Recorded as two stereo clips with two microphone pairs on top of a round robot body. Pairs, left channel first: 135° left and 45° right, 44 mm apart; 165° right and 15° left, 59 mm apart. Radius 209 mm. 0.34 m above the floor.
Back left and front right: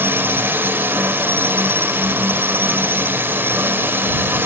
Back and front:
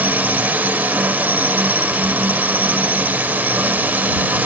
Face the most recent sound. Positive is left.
turn(degrees=-35)